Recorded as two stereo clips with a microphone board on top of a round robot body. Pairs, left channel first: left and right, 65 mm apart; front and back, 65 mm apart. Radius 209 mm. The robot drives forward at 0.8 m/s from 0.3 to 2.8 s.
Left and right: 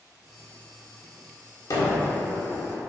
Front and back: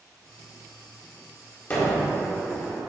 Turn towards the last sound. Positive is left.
turn(degrees=90)